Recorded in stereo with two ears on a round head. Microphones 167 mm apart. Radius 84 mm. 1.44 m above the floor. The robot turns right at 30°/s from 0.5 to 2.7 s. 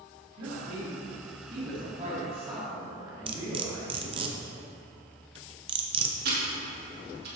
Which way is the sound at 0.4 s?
85° right.